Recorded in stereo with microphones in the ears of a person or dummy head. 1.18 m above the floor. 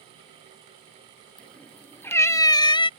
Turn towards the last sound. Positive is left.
turn(degrees=25)  # may be behind; listen again after turning